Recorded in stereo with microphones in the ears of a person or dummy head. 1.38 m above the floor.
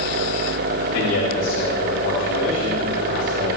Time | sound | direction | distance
0.9 | a man speaking | 65° left (ahead or behind) | 3.5 m